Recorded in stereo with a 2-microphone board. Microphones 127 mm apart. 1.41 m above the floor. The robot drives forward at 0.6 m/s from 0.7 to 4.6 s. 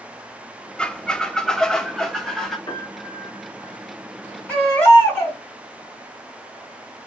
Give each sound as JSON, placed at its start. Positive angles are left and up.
{"t": 0.8, "sound": "a squeak", "side_deg": 10, "distance_m": 0.5}
{"t": 2.7, "sound": "a piano", "side_deg": 35, "distance_m": 3.5}
{"t": 4.5, "sound": "a baby crying", "side_deg": 15, "distance_m": 3.5}